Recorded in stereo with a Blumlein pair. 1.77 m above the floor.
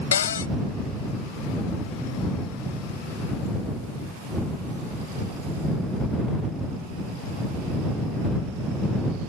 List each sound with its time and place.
0.1 s a cupboard door: 65° left